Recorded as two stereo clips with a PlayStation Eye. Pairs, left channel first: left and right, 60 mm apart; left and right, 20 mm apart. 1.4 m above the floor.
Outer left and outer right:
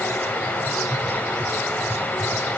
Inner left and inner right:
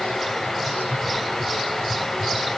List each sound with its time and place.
Only background noise.